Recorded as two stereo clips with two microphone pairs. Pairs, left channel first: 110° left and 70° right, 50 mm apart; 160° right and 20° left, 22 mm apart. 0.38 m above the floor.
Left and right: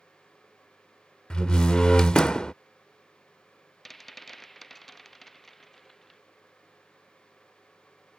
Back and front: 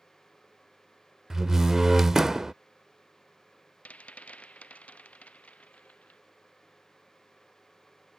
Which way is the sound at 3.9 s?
165° right.